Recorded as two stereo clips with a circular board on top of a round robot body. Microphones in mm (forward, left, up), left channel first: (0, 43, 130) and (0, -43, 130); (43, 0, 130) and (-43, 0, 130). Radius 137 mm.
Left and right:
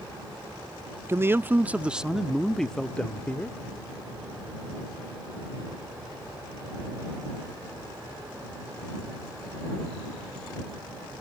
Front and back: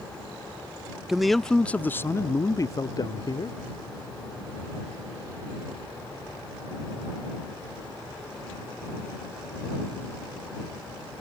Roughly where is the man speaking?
Right.